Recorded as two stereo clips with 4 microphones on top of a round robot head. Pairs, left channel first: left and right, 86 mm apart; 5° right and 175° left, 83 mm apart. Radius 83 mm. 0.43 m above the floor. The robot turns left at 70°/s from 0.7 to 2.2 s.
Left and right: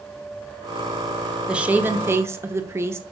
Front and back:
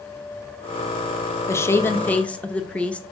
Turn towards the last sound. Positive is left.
turn(degrees=-70)